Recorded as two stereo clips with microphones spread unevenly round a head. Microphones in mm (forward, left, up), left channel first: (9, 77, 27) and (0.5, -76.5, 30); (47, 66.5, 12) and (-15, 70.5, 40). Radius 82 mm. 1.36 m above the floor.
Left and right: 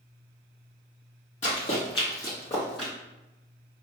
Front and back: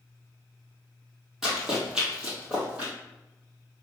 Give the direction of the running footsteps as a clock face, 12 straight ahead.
8 o'clock.